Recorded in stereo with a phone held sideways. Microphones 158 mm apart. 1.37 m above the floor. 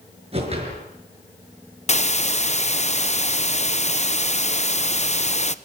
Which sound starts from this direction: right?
A whoosh, at 0.3 s.